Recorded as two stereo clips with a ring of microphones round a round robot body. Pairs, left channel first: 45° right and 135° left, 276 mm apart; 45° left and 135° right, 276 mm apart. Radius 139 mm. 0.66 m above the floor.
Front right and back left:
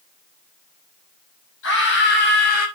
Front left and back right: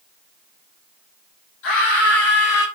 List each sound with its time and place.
1.6 s a scream: 5° left, 5.5 m; by 2.7 s 15° left, 5.5 m